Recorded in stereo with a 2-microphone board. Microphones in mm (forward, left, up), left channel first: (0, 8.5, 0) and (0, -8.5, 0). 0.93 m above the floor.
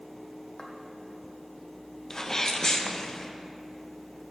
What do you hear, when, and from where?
0.6 s footsteps: 40° left (ahead or behind), 1.6 m
2.1 s a sneeze: 30° left (ahead or behind), 0.8 m